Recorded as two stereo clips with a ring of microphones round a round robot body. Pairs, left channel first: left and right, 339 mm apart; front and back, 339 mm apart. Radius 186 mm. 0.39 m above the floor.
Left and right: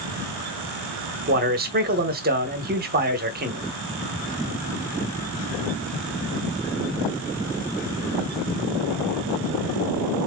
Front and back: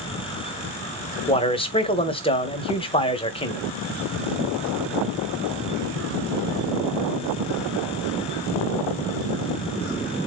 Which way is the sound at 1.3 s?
60° right.